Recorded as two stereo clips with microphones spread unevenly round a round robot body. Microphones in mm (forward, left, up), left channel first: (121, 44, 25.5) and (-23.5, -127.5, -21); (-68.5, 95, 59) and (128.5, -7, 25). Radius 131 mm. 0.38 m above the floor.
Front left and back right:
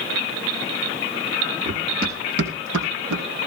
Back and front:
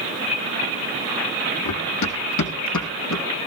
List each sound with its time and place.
1.6 s running footsteps: 160° left, 3.5 m; by 3.2 s 170° right, 3.5 m